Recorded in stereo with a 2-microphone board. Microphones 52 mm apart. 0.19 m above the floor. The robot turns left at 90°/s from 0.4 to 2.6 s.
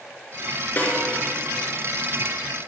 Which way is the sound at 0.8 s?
30° left (ahead or behind).